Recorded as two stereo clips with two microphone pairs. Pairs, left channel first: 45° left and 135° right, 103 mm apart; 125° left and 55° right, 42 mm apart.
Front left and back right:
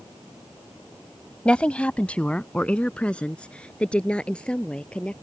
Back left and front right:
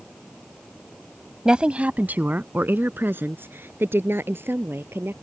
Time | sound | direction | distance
1.4 | a woman speaking | 20° right | ?